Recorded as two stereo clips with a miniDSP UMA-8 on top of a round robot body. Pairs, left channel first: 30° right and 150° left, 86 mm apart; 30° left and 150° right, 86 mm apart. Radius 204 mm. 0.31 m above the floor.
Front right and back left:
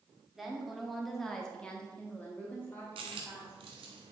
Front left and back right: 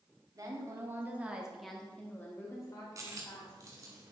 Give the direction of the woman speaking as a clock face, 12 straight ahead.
4 o'clock.